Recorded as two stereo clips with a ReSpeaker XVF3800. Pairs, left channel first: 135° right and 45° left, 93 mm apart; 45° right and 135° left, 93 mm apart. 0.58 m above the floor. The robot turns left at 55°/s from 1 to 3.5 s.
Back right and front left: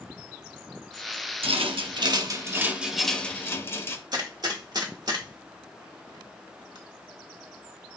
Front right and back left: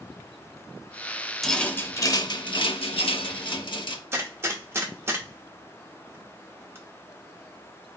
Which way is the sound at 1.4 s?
40° left.